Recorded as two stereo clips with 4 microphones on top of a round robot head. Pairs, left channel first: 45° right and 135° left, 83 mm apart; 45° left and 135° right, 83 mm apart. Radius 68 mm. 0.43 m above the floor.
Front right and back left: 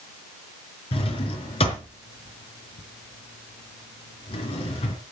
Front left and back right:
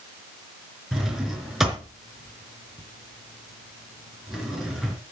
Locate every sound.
0.9 s a drawer: 50° right, 3.5 m